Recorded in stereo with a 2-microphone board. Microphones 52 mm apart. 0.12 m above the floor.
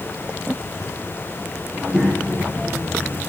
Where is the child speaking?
25° right (ahead or behind), 6 m.